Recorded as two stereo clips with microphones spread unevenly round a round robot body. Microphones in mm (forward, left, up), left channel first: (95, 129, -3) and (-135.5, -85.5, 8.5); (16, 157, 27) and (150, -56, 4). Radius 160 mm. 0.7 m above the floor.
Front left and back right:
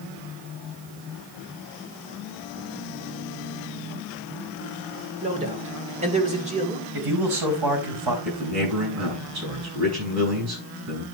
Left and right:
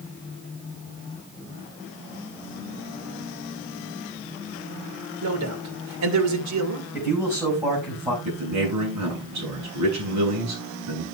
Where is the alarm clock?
No alarm clock in this recording.